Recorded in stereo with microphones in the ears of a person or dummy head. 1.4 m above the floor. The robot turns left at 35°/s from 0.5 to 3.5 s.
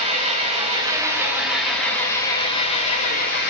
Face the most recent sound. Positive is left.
turn(degrees=115)